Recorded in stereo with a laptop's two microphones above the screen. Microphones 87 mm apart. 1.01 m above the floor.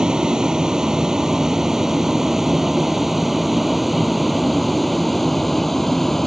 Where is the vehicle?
5° right (ahead or behind); by 6.3 s 5° left (ahead or behind).